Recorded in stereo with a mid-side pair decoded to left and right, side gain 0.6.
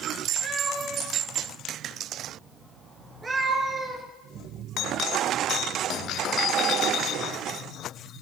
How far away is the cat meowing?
About 4 m.